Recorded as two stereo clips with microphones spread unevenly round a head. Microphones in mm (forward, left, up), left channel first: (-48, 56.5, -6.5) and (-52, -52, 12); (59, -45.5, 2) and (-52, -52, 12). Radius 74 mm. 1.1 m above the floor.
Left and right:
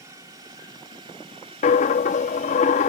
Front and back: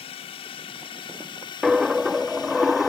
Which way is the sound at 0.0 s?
25° right.